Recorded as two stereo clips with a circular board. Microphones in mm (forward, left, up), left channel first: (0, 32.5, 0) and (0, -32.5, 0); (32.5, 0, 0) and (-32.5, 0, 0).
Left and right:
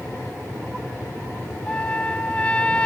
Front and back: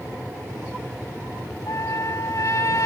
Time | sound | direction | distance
1.7 | a trumpet | 20° left | ?